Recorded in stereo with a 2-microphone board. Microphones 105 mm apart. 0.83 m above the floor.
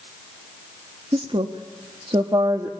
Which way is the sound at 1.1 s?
55° right (ahead or behind).